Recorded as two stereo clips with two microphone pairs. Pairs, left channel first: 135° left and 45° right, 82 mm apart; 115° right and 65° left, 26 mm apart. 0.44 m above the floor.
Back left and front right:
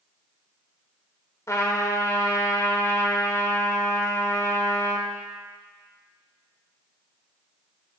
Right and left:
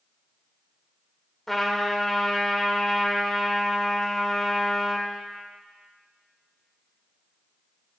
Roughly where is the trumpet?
Behind.